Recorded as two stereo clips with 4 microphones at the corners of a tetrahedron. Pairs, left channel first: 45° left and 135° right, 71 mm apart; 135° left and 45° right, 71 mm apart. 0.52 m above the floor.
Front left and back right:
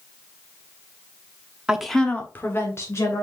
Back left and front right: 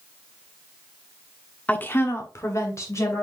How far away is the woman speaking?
About 1.1 m.